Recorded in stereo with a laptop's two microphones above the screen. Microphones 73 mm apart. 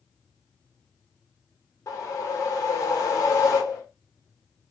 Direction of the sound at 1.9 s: 50° left (ahead or behind).